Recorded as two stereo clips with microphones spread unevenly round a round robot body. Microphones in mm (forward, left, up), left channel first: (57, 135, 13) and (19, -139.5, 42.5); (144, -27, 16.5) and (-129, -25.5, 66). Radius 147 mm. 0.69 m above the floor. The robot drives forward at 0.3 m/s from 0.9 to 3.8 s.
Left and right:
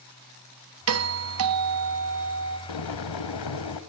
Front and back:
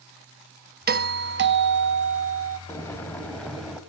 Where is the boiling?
80° left, 2.0 m; by 3.8 s 90° left, 1.9 m.